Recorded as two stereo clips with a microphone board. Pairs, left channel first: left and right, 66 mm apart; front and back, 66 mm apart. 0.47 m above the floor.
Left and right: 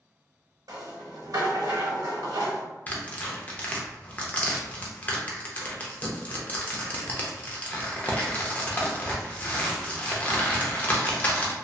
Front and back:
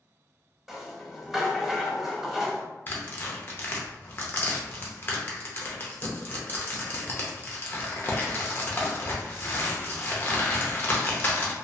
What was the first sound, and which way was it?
A rattle, 95° right.